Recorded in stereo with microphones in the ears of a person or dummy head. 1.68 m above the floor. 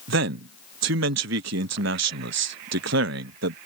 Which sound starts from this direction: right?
A man speaking, at 0.1 s.